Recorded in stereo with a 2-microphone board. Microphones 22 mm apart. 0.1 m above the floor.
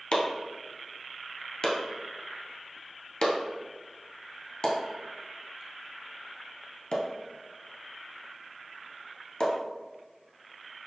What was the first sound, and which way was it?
Chopping, 45° left (ahead or behind).